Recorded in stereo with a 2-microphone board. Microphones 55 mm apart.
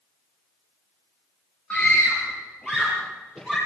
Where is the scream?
15° left (ahead or behind), 3 m; by 3.6 s 10° left (ahead or behind), 5.5 m.